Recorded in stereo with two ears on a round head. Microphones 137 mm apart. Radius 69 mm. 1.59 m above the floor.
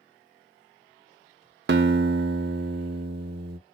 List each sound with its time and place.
1.7 s a guitar: 70° right (ahead or behind), 0.5 m